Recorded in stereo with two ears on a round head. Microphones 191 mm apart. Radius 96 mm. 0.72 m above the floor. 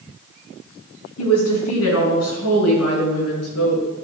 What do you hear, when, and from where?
1.2 s a woman speaking: 75° left (ahead or behind), 5.5 m; by 3.8 s 85° left, 7 m